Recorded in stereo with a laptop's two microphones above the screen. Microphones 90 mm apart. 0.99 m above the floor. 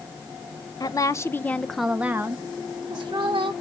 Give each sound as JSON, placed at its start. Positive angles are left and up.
{"t": 0.8, "sound": "a woman speaking", "side_deg": 45, "distance_m": 0.7}